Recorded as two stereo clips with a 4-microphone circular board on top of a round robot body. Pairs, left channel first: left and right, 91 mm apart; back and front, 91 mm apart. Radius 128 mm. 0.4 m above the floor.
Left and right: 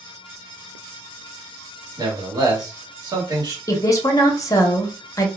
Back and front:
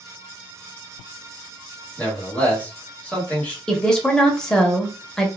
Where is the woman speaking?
105° left, 1.0 m.